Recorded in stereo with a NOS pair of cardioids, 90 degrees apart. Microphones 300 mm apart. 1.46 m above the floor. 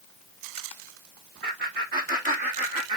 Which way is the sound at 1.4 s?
35° right.